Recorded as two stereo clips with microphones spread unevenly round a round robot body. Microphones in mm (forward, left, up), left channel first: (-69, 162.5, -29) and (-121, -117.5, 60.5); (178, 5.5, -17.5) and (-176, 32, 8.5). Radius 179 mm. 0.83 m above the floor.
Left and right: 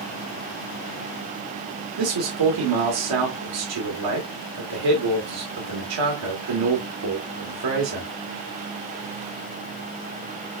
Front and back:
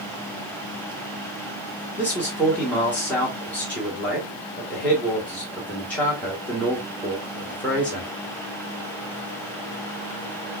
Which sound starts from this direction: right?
A man speaking, at 2.0 s.